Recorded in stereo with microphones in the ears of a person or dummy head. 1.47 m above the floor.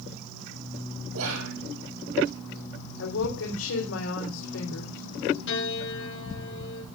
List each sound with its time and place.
1.1 s whispering: 80° right, 4 m
3.0 s a woman speaking: 80° left, 4.5 m
5.5 s a piano: 70° left (ahead or behind), 7.5 m